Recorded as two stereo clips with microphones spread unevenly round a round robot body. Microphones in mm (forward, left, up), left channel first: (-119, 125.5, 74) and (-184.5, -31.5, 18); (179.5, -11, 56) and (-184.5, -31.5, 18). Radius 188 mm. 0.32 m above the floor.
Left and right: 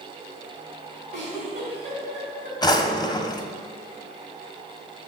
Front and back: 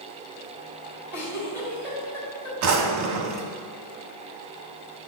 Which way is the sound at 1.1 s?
85° right.